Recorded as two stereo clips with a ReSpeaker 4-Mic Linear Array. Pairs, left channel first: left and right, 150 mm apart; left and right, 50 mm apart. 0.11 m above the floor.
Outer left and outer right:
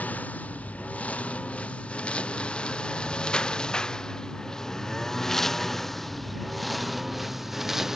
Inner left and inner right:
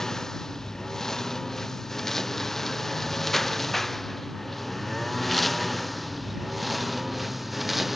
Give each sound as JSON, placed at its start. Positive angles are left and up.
{"t": 0.0, "sound": "a lawn mower", "side_deg": 10}